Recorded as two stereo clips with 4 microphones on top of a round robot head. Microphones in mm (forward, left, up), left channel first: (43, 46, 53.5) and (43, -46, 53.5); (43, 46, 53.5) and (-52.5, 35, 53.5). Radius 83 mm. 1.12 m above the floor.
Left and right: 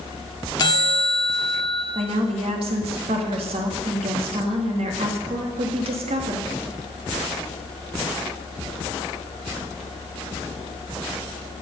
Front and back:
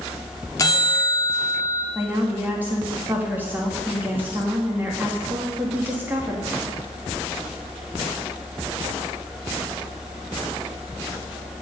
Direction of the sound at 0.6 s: 55° left.